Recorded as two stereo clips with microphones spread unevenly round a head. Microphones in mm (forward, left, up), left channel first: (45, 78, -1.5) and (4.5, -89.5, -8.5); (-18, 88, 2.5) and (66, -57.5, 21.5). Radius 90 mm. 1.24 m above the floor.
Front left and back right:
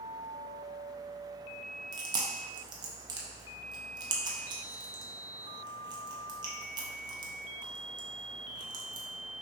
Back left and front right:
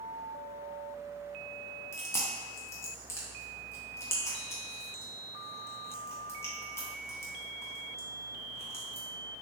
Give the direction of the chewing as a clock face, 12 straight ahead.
5 o'clock.